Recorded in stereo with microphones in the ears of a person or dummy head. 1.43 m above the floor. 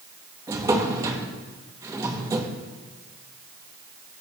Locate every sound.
0.5 s a drawer: 15° right (ahead or behind), 0.8 m